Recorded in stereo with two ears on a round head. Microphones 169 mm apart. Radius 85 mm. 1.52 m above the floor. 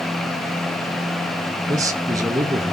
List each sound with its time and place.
1.7 s a man speaking: 20° right (ahead or behind), 1.8 m